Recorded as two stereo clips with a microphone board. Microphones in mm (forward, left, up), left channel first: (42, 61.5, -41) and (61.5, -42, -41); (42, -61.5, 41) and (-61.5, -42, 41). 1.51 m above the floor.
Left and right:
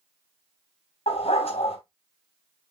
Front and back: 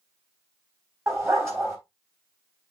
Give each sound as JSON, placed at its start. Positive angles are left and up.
{"t": 1.1, "sound": "a dog barking", "azimuth_deg": 105, "distance_m": 3.0}